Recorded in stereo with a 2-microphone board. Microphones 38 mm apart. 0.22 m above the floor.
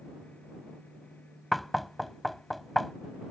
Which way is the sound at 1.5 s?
Centre (ahead or behind).